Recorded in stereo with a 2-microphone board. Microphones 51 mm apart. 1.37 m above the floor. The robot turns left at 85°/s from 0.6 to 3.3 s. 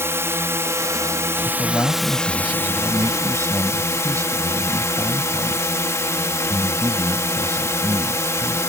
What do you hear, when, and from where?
0.0 s a drone: 60° right; by 8.7 s 70° left
1.4 s a man speaking: 75° left; by 8.6 s 85° right